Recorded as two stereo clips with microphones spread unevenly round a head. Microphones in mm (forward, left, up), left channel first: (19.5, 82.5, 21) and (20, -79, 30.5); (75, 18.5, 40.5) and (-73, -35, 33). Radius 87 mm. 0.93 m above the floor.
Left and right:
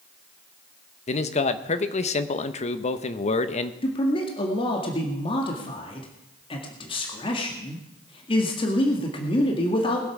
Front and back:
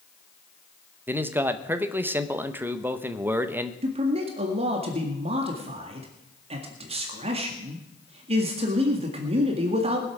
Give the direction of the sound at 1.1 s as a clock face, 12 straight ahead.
8 o'clock.